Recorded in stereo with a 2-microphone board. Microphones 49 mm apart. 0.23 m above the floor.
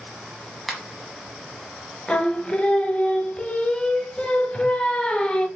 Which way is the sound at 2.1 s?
25° left (ahead or behind).